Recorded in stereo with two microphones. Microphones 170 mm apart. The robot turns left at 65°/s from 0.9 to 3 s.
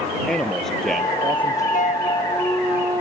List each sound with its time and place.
0.3 s a man speaking: 5° left; by 1.6 s 45° right
1.7 s a flute: 55° left; by 3.0 s 30° right